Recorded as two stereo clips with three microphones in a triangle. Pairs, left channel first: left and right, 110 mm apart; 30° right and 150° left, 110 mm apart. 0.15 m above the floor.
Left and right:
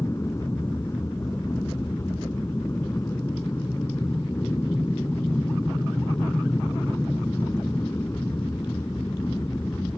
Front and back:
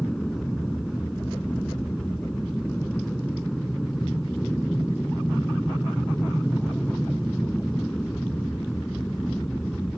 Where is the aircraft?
55° left.